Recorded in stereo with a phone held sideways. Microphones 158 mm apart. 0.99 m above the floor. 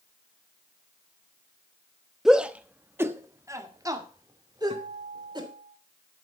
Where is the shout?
Centre (ahead or behind), 1.0 m; by 5.5 s 30° right (ahead or behind), 3 m.